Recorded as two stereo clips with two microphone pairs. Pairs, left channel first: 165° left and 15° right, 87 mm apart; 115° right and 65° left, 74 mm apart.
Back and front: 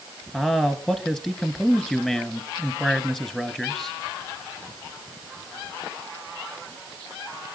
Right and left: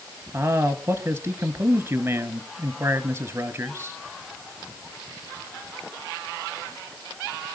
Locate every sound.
0.3 s a man speaking: 90° left, 1.7 m